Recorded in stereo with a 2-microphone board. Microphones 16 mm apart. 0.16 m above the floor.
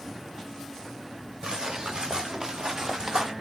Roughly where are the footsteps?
Right.